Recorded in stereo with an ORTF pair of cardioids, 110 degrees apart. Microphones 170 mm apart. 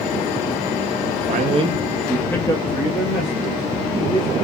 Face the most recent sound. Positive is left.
turn(degrees=45)